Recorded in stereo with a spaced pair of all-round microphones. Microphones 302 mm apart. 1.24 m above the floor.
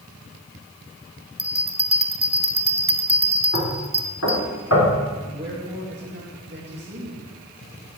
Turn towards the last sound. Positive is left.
turn(degrees=-35)  # may be behind; listen again after turning